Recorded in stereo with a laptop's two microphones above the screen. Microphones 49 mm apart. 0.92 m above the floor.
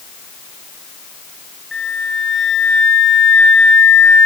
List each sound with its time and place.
1.7 s a flute: 5° right (ahead or behind), 1.1 m